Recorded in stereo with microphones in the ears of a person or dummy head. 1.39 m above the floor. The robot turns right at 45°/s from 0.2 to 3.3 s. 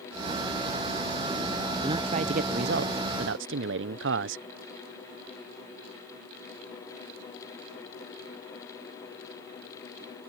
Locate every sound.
1.8 s a man speaking: 155° right; by 4.5 s 90° right